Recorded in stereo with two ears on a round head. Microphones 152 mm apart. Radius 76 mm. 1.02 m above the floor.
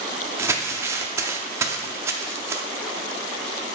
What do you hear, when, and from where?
0.4 s crumpling: 15° right (ahead or behind), 0.5 m